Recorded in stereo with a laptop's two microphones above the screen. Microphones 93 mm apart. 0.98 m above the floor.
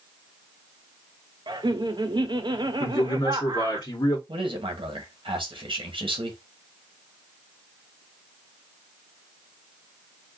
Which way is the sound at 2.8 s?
50° left (ahead or behind).